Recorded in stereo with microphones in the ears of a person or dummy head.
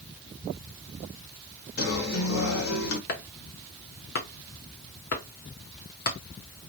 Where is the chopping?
50° left (ahead or behind), 1.1 m.